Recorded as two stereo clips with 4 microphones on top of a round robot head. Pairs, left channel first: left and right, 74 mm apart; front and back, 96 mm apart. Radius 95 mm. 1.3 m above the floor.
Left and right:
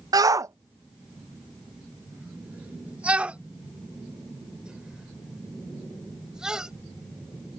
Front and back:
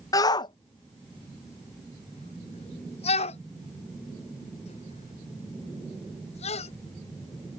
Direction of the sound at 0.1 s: 55° right.